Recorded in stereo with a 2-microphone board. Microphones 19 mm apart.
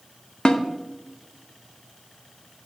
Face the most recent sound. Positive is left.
turn(degrees=50)  # may be behind; listen again after turning